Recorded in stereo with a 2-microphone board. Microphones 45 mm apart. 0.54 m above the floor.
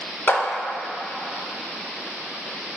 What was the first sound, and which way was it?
A clap, 50° left (ahead or behind).